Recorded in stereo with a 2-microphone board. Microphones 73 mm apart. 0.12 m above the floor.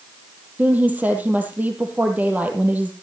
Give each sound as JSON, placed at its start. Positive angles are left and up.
{"t": 0.6, "sound": "a woman speaking", "side_deg": -20, "distance_m": 3.0}